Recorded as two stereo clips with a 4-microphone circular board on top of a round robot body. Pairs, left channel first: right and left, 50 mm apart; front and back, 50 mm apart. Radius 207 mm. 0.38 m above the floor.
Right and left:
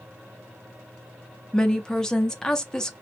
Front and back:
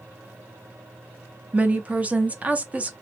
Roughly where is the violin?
I don't hear a violin.